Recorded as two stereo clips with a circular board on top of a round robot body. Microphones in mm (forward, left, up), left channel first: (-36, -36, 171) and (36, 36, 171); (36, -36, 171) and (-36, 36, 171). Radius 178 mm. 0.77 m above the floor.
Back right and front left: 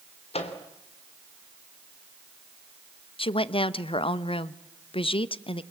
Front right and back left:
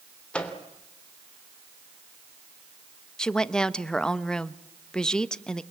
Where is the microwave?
125° right, 3 m.